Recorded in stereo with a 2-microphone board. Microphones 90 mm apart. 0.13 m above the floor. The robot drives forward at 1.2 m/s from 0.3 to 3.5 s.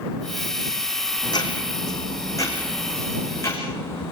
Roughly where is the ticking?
Left.